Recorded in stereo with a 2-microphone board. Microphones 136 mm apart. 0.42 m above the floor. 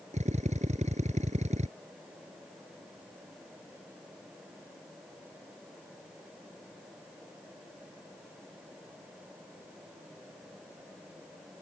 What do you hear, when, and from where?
0.1 s a drill: 60° right (ahead or behind)